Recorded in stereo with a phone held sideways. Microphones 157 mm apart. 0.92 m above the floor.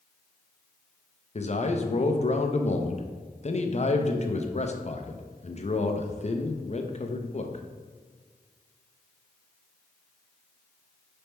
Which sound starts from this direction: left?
A man speaking, at 1.4 s.